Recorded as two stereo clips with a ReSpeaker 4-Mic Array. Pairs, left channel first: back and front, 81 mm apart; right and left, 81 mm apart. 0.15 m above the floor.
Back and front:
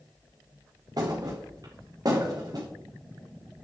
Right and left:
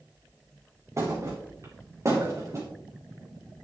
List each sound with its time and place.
1.0 s a thud: 40° left, 2.5 m